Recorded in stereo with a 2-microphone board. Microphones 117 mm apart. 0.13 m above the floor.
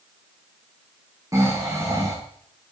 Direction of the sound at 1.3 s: 30° right (ahead or behind).